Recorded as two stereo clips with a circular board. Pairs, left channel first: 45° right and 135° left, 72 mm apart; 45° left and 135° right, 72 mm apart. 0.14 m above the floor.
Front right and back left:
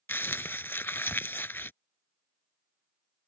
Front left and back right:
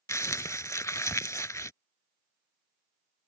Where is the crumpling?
10° left.